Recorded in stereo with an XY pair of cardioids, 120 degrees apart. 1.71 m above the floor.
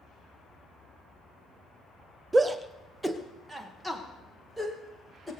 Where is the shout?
20° right, 0.8 m; by 5.3 s 5° right, 2.5 m.